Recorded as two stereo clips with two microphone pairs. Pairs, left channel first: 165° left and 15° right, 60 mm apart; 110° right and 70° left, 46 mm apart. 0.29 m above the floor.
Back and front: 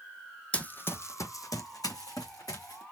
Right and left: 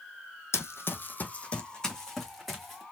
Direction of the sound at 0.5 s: 125° right.